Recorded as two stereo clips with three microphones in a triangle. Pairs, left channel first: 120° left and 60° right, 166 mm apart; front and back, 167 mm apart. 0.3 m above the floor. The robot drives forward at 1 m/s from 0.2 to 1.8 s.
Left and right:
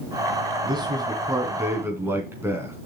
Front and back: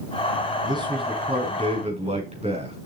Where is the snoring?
I don't hear snoring.